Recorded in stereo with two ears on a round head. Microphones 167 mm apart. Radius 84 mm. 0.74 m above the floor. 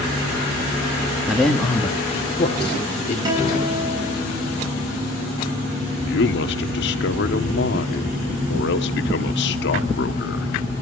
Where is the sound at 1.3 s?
5° right (ahead or behind), 1.4 m; by 3.1 s 35° left (ahead or behind), 3 m.